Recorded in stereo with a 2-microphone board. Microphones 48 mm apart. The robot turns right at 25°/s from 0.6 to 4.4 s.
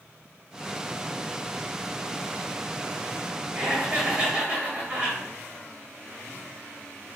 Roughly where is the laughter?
Right.